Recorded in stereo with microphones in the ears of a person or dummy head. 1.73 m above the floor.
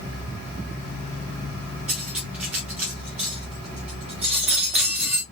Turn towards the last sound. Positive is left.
turn(degrees=0)  # may be behind; listen again after turning